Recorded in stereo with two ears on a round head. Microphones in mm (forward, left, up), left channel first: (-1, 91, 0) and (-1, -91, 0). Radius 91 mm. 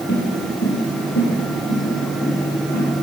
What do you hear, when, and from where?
0.1 s footsteps: 55° left (ahead or behind), 3 m; by 2.8 s 70° left (ahead or behind), 6 m